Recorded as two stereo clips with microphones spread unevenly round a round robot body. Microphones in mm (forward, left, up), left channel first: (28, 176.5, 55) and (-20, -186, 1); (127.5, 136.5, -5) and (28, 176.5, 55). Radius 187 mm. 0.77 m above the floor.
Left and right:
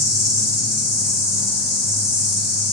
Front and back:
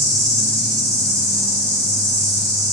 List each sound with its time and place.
0.0 s an insect: 160° left, 0.7 m